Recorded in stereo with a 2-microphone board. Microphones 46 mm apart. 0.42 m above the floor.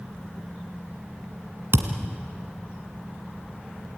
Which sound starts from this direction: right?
A thud, at 1.7 s.